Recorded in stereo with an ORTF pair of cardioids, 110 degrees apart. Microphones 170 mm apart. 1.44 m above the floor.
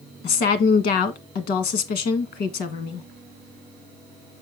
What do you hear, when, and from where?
0.2 s a woman speaking: 70° left, 1.5 m